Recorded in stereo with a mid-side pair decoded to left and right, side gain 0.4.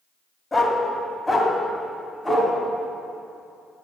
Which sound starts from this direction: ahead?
A dog barking, at 0.5 s.